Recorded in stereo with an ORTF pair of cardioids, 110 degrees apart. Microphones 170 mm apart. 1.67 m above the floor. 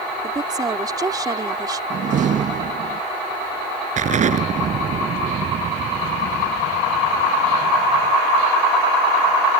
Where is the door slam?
45° right.